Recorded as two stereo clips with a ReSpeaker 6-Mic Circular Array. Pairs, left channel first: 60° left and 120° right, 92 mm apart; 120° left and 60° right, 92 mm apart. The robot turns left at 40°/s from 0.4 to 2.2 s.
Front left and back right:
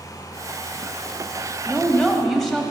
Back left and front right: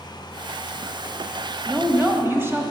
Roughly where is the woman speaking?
Ahead.